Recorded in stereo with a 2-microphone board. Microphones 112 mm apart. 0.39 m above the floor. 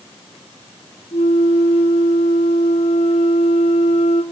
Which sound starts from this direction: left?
A flute, at 1.1 s.